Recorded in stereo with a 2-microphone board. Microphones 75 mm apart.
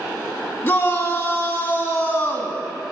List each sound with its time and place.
0.6 s a shout: 25° left (ahead or behind), 2.0 m